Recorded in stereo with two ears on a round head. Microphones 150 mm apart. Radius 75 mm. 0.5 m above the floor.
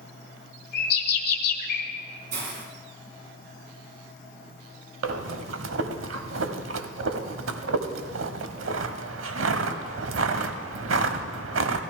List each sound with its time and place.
0.7 s a bird: 55° left (ahead or behind), 1.4 m
2.3 s a hiss: 60° right (ahead or behind), 2.5 m
5.0 s breathing: 85° right, 0.8 m